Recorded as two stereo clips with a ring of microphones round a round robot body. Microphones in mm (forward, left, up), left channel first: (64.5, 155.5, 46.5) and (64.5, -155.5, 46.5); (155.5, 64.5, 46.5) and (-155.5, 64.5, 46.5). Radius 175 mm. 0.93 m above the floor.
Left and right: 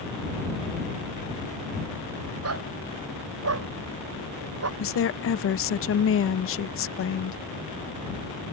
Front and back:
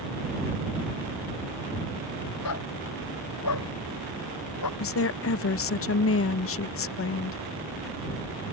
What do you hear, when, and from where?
2.4 s a dog barking: 50° right
4.8 s a woman speaking: 45° left